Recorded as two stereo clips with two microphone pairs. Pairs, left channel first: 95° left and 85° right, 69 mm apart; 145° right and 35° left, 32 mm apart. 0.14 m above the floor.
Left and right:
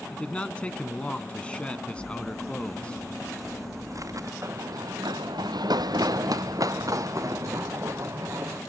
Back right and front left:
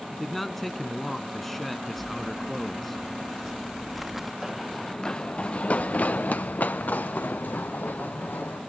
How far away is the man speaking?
About 1.1 m.